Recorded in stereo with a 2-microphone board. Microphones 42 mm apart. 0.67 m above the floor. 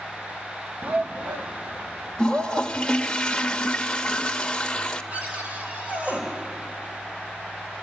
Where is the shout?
45° right (ahead or behind), 0.6 m.